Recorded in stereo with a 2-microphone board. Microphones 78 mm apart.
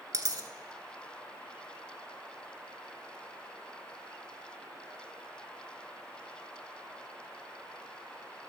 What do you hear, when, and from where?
0.1 s a dropped coin: 50° right (ahead or behind), 0.9 m